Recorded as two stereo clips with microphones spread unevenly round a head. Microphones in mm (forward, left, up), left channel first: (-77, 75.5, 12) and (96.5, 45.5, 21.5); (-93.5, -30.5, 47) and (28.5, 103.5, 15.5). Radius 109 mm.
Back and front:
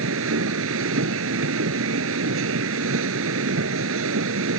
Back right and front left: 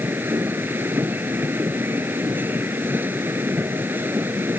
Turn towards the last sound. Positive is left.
turn(degrees=-35)